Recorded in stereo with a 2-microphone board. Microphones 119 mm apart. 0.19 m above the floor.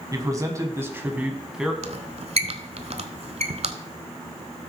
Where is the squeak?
65° right (ahead or behind), 0.7 m.